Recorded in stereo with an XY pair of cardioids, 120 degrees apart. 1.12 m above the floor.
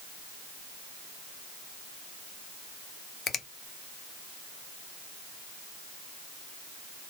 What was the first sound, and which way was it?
A finger snap, 45° left.